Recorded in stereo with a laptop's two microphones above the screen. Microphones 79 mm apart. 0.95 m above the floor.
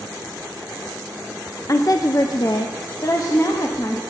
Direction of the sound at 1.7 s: 40° left (ahead or behind).